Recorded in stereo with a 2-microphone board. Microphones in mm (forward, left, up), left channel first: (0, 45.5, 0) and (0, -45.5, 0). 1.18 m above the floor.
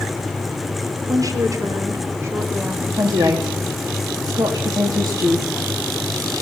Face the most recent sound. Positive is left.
turn(degrees=-45)  # may be behind; listen again after turning